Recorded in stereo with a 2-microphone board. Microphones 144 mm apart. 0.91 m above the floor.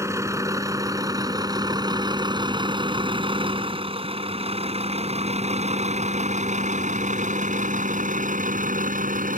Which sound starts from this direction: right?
A vehicle, at 0.0 s.